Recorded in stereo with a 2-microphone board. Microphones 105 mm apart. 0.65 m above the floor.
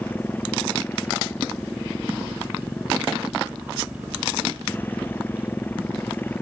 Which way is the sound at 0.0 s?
20° left (ahead or behind).